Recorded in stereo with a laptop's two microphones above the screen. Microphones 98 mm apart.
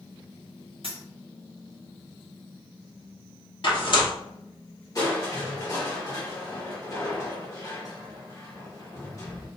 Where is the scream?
No scream in this recording.